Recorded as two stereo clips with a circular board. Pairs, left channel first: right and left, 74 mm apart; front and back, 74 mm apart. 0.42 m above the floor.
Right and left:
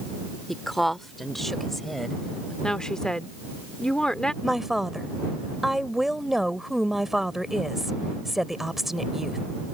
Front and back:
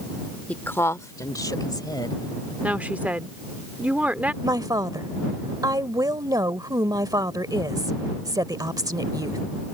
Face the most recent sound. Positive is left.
turn(degrees=175)